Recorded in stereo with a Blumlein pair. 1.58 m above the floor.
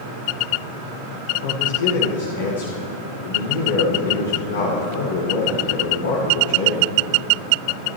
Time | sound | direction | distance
1.4 | a man speaking | 60° left | 2 m